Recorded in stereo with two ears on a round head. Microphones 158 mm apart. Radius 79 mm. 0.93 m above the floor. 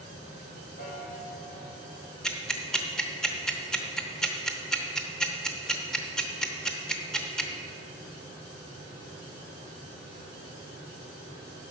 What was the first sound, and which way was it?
A piano, 55° left (ahead or behind).